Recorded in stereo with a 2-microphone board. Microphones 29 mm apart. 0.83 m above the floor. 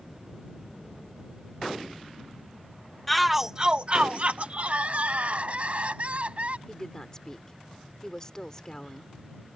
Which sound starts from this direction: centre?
A shout, at 3.1 s.